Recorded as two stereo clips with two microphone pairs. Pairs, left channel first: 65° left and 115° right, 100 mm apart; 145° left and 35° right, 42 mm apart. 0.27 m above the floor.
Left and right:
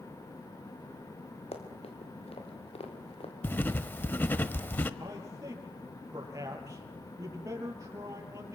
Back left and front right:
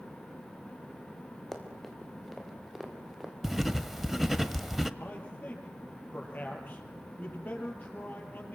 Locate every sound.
1.5 s running footsteps: 60° left, 5 m; by 3.3 s 45° left, 5 m
3.4 s writing: 40° left, 1.1 m
5.0 s a man speaking: 170° right, 6 m